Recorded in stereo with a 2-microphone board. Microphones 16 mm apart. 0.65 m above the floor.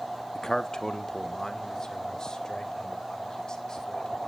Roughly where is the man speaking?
Left.